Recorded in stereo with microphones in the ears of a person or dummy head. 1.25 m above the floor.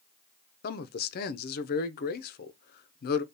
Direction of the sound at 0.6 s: 50° left (ahead or behind).